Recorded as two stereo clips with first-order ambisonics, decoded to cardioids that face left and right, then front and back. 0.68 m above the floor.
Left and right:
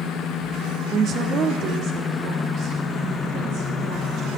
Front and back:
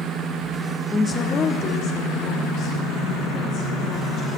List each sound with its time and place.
0.9 s a woman speaking: 70° right, 0.7 m; by 4.4 s 50° right, 4.5 m